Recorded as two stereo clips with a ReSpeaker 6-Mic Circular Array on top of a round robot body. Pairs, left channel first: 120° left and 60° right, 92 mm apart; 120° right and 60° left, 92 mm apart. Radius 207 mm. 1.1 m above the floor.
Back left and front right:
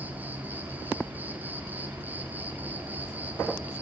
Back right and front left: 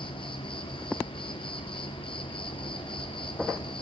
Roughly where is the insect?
Behind right.